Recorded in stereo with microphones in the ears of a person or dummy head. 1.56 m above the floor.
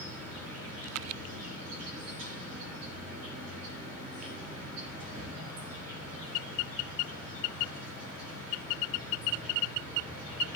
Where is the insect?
85° right, 7.5 m.